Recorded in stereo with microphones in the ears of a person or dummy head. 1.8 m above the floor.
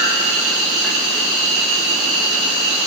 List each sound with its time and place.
0.0 s an insect: 5° right (ahead or behind), 3.5 m